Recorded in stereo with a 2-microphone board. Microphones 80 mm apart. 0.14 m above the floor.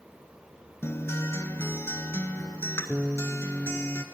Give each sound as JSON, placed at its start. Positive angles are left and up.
{"t": 0.8, "sound": "a guitar", "side_deg": 35, "distance_m": 0.5}